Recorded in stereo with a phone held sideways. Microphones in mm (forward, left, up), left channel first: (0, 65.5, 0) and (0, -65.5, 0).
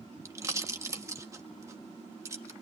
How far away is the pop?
About 1.5 m.